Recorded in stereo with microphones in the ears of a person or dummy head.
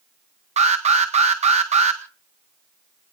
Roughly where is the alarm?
Right.